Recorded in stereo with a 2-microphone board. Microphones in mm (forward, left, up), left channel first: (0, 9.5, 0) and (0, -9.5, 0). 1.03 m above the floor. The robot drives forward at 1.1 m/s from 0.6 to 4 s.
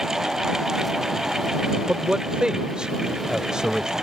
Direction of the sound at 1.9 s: 65° right (ahead or behind).